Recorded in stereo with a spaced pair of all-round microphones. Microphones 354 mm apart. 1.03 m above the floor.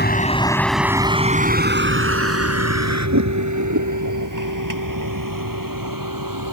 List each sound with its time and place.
0.0 s a vehicle: 25° left (ahead or behind); by 6.5 s 65° right (ahead or behind)